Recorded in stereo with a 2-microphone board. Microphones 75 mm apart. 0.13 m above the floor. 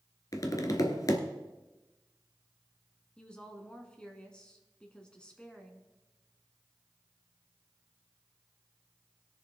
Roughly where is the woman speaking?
Centre.